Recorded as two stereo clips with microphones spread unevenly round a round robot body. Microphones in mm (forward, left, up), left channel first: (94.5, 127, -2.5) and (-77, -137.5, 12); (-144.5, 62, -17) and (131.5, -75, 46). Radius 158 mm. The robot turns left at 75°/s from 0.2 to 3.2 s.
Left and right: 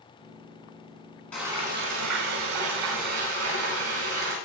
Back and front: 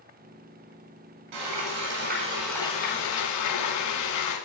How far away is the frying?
About 7.5 m.